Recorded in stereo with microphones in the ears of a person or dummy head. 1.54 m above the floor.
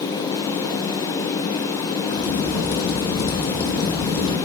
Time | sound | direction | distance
2.1 | a crack | 55° left (ahead or behind) | 2 m